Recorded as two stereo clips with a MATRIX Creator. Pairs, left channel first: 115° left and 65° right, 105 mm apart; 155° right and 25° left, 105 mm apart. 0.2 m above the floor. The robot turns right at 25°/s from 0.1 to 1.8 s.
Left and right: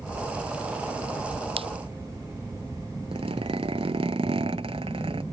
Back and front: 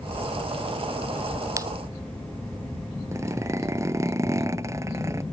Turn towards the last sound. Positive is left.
turn(degrees=-40)